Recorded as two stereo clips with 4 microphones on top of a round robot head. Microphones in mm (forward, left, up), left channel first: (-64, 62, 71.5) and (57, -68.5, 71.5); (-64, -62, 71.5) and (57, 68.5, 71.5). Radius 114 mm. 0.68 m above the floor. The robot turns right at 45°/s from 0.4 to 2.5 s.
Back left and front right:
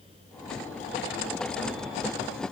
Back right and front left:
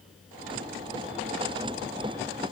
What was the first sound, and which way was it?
Only background noise.